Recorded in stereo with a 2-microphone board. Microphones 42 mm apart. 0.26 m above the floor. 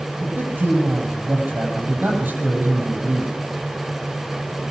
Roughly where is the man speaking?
Right.